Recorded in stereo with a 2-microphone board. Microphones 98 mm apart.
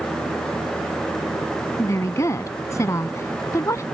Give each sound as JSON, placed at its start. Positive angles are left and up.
{"t": 1.8, "sound": "a woman speaking", "side_deg": 30}